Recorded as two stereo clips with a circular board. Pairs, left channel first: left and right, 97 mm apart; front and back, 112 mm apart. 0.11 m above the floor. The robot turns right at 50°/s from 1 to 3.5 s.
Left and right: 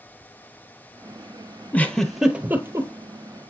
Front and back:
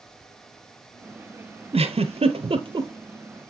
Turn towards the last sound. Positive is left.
turn(degrees=-110)